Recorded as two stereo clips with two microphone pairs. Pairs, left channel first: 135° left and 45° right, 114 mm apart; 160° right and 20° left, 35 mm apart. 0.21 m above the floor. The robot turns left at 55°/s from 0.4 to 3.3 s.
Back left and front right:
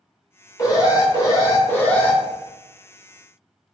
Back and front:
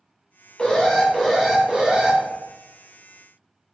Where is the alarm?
145° left, 0.7 m; by 2.2 s 60° left, 0.7 m.